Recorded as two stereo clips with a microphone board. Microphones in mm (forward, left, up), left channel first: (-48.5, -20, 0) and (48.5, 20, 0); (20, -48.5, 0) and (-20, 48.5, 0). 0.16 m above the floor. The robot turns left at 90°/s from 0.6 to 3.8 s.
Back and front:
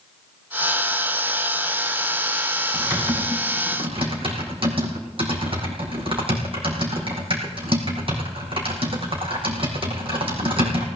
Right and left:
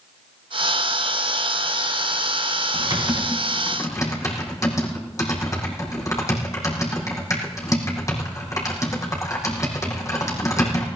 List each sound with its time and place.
2.7 s typing on a keyboard: 85° left, 4.5 m; by 10.9 s 10° right, 4.5 m